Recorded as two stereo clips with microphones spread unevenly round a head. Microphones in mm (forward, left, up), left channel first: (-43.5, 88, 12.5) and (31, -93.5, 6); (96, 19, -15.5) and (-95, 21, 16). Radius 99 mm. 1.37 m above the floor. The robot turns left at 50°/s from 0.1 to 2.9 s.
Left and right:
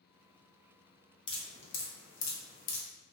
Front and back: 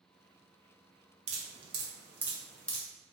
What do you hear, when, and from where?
1.3 s dripping: 165° left, 0.6 m; by 2.8 s 85° left, 0.6 m